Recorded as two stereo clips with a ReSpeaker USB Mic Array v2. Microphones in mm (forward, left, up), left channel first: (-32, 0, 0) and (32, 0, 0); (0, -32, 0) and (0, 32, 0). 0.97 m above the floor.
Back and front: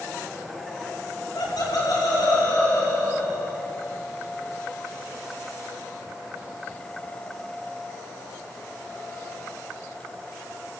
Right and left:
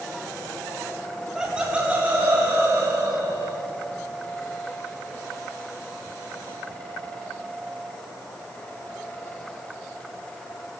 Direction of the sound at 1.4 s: 175° left.